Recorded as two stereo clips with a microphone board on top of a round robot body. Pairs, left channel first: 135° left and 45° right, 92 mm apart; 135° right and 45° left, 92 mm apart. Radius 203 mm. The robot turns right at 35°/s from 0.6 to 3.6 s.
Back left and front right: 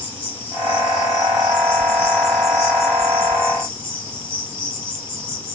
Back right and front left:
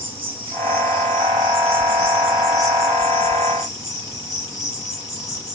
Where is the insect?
65° left, 3 m; by 5.5 s 170° left, 3 m.